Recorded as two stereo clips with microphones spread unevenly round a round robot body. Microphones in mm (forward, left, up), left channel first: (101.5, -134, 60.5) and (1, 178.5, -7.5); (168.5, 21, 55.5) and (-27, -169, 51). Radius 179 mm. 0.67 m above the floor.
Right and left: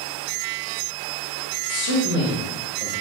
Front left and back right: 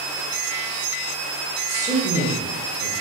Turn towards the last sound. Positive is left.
turn(degrees=-170)